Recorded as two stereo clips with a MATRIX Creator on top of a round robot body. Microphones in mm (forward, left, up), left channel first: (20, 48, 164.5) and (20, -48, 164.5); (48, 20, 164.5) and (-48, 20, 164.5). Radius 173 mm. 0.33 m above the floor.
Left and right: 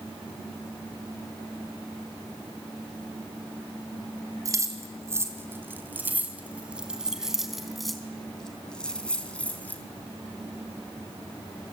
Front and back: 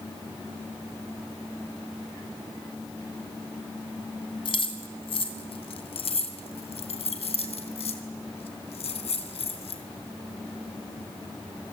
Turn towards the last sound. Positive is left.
turn(degrees=15)